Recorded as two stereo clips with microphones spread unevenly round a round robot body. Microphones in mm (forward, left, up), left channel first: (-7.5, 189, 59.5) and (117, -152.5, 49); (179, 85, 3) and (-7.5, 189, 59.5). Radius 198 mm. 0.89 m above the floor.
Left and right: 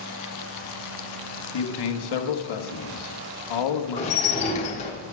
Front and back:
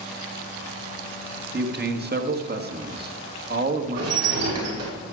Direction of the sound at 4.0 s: 175° right.